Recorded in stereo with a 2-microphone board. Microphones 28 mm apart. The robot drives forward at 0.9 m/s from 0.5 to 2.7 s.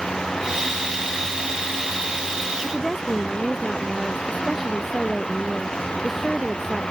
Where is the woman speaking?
5° left (ahead or behind).